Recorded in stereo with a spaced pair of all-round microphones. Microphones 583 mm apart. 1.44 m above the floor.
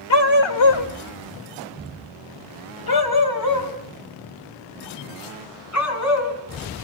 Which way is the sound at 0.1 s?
45° left (ahead or behind).